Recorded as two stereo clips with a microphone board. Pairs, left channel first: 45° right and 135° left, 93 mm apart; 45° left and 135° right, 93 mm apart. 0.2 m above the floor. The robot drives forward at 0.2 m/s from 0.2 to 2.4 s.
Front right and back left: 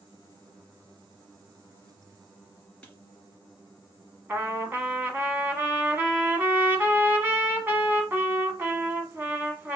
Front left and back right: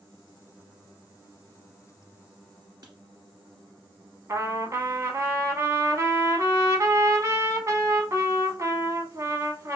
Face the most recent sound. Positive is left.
turn(degrees=-170)